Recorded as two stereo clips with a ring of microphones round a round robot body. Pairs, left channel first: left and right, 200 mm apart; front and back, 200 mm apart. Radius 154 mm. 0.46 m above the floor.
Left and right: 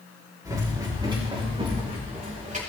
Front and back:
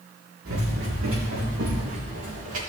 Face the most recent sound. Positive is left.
turn(degrees=-140)